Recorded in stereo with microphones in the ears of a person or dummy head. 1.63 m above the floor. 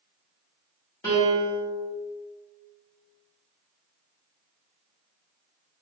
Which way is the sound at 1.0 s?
15° left (ahead or behind).